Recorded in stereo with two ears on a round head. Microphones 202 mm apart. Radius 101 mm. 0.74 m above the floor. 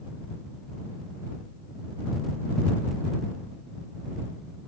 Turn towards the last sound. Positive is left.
No sound to turn to.